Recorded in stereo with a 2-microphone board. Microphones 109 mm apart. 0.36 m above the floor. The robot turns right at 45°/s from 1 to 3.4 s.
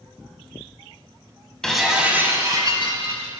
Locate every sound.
1.6 s breaking glass: 175° left, 0.9 m; by 3.3 s 110° right, 0.9 m